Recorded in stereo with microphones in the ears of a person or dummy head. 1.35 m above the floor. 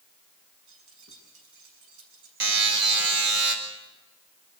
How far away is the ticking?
No ticking in this recording.